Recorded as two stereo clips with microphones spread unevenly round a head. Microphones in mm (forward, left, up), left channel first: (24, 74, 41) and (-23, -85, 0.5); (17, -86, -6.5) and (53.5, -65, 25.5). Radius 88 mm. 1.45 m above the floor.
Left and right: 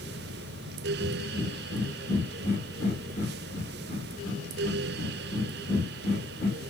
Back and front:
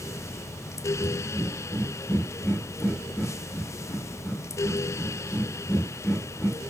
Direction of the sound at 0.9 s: 95° left.